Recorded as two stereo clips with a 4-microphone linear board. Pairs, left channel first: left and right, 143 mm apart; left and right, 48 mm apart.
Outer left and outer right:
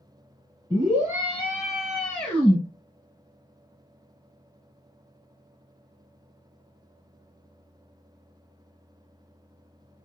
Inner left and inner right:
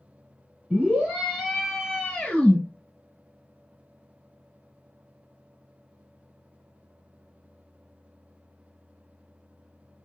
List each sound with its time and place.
0.7 s a scream: 30° right (ahead or behind), 1.5 m; by 2.6 s 20° left (ahead or behind), 1.4 m